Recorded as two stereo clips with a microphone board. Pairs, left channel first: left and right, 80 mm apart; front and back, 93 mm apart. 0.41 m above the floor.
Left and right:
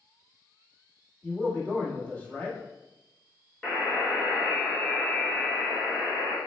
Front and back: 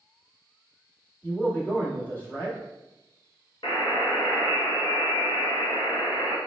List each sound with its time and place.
1.2 s a man speaking: 35° left, 1.4 m
3.6 s a buzzer: 15° left, 1.2 m